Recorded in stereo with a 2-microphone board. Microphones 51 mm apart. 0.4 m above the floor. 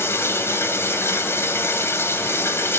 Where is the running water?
55° left (ahead or behind), 1.9 m.